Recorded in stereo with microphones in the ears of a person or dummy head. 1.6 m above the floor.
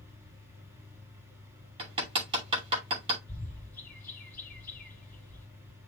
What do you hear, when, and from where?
0.0 s a fan: 15° right (ahead or behind), 2.5 m
1.8 s hammering: 30° right (ahead or behind), 2.5 m
3.3 s a bird: 10° left (ahead or behind), 2.5 m